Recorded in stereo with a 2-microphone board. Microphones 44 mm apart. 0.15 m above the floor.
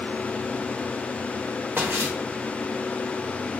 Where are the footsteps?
60° right (ahead or behind), 1.1 m.